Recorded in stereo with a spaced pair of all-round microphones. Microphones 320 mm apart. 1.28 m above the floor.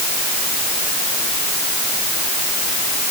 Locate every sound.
Only background noise.